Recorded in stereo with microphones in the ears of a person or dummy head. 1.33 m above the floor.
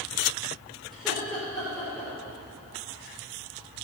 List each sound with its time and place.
0.9 s laughter: centre (ahead or behind), 5 m